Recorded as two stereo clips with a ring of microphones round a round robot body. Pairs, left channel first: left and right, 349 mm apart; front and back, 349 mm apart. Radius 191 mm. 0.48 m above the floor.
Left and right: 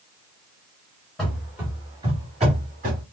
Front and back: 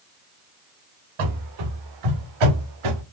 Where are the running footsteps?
Straight behind, 3 m; by 3.0 s 160° right, 3.5 m.